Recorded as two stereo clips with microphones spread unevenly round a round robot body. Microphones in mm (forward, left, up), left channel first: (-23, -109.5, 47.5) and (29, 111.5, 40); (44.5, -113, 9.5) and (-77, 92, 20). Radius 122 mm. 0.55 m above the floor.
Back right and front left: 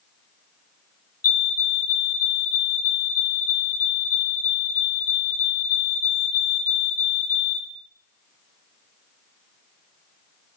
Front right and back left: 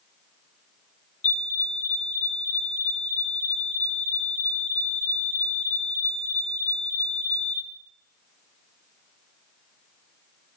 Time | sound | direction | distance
1.2 | a fire alarm | 90° right | 2 m